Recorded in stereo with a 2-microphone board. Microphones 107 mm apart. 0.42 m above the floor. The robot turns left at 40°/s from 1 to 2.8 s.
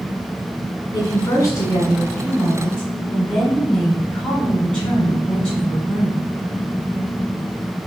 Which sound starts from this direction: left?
A woman speaking, at 0.9 s.